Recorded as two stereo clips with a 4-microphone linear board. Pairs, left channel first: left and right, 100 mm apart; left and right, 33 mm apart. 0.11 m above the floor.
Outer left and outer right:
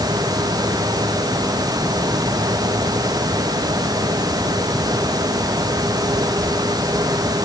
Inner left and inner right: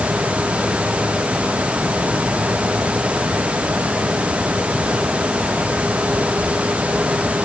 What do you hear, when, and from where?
Only background noise.